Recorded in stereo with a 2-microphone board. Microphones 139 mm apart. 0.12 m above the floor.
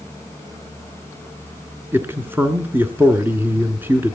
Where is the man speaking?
15° right (ahead or behind), 1.2 m.